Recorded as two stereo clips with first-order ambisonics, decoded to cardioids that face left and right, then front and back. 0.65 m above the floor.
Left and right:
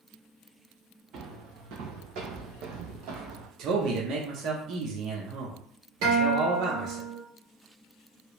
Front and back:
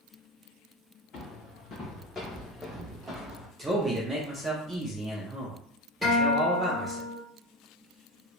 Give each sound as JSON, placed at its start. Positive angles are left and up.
{"t": 1.1, "sound": "footsteps", "azimuth_deg": -50, "distance_m": 1.7}
{"t": 3.6, "sound": "a man speaking", "azimuth_deg": -105, "distance_m": 0.7}
{"t": 6.0, "sound": "a guitar", "azimuth_deg": -85, "distance_m": 2.0}